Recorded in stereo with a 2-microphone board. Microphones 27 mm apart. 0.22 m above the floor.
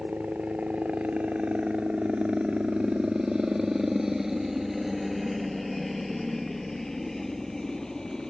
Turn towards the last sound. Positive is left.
turn(degrees=20)  # may be behind; listen again after turning